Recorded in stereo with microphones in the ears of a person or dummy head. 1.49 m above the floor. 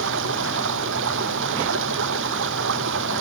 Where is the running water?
70° right (ahead or behind).